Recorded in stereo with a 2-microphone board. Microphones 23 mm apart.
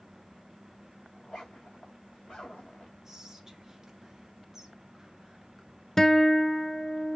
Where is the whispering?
15° right (ahead or behind), 1.8 m.